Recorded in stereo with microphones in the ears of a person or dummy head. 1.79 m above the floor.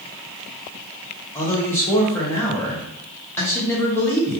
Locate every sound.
1.4 s a man speaking: 15° left (ahead or behind), 0.8 m